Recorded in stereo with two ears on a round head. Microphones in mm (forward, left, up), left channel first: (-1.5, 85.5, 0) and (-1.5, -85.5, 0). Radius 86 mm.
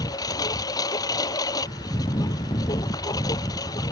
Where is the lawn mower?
20° left (ahead or behind).